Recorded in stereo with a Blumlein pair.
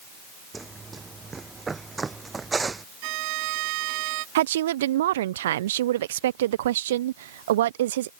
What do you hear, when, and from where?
0.5 s running footsteps: 15° right
3.0 s a violin: 45° right
4.3 s a woman speaking: 60° right